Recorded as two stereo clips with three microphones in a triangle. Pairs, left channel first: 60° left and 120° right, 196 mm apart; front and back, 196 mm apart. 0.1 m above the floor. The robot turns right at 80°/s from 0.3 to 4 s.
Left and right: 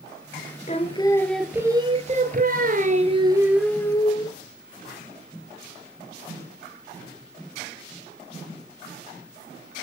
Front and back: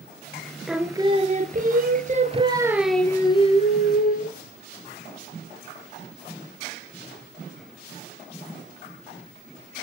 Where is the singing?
90° left, 1.2 m; by 4.4 s straight ahead, 1.2 m.